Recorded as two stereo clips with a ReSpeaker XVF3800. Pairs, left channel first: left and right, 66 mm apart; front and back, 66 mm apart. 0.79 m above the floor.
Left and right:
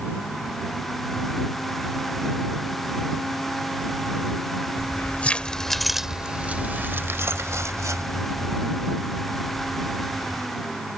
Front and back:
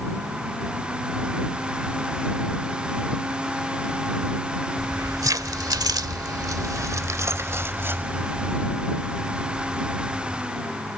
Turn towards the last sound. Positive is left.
turn(degrees=-105)